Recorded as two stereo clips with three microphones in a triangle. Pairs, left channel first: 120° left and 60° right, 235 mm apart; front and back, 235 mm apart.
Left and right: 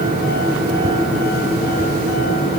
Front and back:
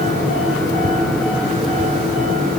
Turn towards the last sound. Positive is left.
No sound to turn to.